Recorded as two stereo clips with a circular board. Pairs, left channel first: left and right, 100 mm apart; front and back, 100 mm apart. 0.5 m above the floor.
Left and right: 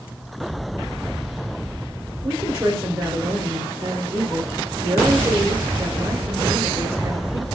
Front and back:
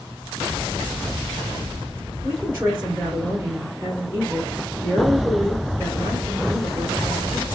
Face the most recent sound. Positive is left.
turn(degrees=-130)